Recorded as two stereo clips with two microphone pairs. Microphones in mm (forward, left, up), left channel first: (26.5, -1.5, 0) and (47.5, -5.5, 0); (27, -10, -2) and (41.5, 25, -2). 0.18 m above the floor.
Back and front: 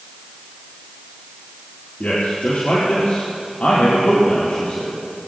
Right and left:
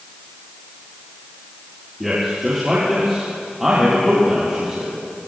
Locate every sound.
2.0 s a man speaking: 150° left, 4.5 m